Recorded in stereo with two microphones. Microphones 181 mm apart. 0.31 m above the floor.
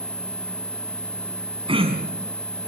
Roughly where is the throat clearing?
Right.